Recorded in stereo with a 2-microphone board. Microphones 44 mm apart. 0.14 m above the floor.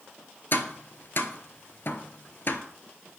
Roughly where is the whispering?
I don't hear whispering.